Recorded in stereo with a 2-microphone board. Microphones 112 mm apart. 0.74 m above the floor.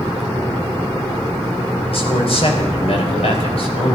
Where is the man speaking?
60° left (ahead or behind), 3.5 m.